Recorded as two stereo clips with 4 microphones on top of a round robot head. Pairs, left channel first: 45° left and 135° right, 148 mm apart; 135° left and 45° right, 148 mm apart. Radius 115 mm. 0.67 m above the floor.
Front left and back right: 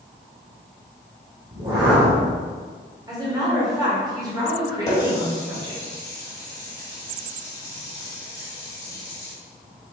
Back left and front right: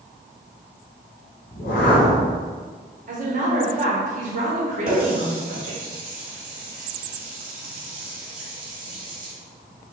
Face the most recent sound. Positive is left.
turn(degrees=-20)